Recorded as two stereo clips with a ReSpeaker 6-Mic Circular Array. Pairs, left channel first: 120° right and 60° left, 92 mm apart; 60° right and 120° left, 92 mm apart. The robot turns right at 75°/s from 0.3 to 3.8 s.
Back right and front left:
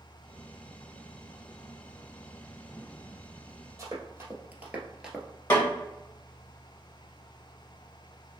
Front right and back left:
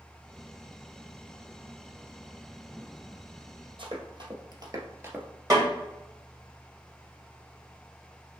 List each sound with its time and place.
3.8 s running footsteps: 115° left, 1.8 m; by 5.3 s 150° left, 1.0 m
5.5 s a snare drum: 170° left, 2.0 m